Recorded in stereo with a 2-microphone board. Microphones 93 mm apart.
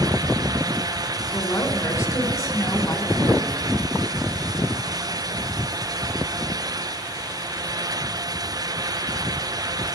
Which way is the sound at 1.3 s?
35° left (ahead or behind).